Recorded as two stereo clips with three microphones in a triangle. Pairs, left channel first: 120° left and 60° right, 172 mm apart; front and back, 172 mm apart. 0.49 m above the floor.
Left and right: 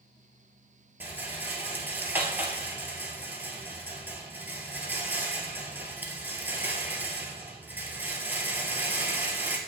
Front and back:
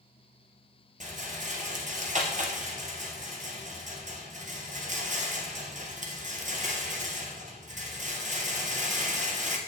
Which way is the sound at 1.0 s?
140° right.